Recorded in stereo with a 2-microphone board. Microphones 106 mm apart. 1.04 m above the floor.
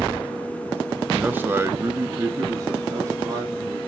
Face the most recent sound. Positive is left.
turn(degrees=-35)  # may be behind; listen again after turning